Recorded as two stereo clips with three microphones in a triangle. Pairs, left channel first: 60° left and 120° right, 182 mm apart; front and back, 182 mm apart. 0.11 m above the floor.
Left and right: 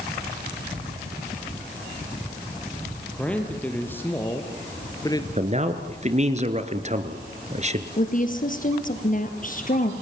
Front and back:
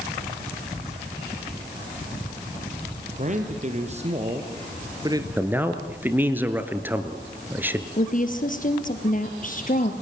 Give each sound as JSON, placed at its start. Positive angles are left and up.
{"t": 3.1, "sound": "a man speaking", "azimuth_deg": 145, "distance_m": 2.5}
{"t": 5.4, "sound": "a man speaking", "azimuth_deg": -110, "distance_m": 1.7}
{"t": 8.0, "sound": "a woman speaking", "azimuth_deg": 30, "distance_m": 2.5}